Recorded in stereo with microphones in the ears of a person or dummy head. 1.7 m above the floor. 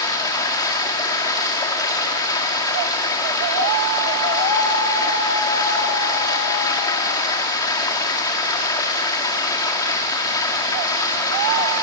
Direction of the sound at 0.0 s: 20° left (ahead or behind).